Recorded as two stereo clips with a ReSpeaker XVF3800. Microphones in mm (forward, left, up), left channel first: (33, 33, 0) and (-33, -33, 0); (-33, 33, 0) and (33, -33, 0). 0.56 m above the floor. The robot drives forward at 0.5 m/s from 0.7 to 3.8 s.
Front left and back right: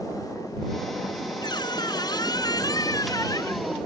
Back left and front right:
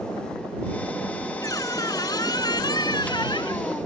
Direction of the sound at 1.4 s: 85° left.